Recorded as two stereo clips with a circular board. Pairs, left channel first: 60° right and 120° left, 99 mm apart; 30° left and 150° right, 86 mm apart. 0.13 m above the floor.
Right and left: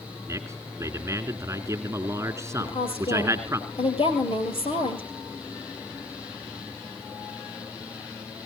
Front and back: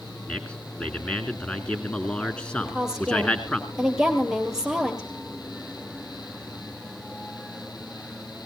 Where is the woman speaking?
70° right, 4 m.